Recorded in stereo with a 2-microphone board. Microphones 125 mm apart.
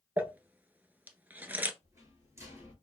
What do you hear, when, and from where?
0.2 s crumpling: 15° right (ahead or behind), 0.5 m
1.8 s a rattle: 25° right (ahead or behind), 1.5 m